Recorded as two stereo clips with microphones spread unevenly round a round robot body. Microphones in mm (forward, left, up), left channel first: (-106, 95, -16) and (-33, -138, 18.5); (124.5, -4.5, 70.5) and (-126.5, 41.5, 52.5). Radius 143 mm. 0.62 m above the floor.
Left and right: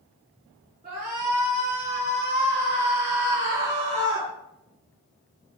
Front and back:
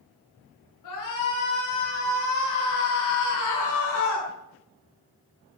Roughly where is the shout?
Ahead.